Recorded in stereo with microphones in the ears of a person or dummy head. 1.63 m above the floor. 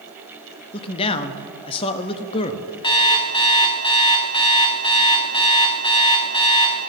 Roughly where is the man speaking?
Left.